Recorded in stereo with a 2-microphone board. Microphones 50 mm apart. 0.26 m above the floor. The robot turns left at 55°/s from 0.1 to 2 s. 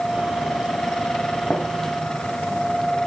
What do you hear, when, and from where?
1.5 s a gunshot: 25° left (ahead or behind), 1.8 m; by 1.7 s 30° left (ahead or behind), 1.8 m